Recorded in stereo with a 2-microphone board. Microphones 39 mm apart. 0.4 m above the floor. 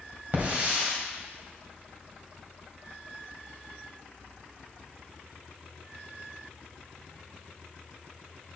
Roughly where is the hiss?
Right.